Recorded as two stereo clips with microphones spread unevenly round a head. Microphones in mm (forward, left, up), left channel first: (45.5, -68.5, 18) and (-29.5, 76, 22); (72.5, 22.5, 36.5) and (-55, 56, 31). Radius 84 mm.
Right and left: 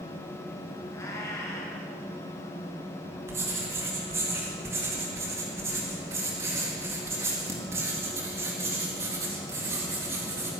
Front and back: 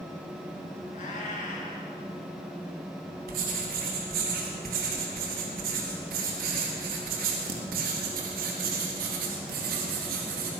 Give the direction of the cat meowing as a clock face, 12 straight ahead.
12 o'clock.